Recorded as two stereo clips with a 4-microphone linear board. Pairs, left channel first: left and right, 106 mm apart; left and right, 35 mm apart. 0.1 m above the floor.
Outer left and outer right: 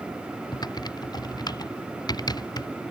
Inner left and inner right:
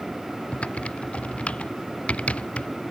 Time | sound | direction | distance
0.5 | typing on a keyboard | 40° left (ahead or behind) | ?